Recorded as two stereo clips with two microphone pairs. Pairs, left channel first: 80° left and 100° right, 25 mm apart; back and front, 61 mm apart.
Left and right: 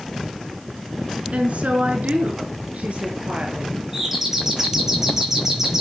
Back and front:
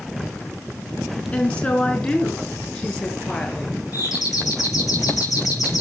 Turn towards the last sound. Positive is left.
turn(degrees=-170)